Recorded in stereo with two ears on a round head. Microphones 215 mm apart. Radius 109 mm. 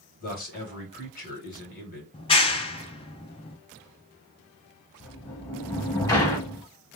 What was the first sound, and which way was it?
A man speaking, 40° left (ahead or behind).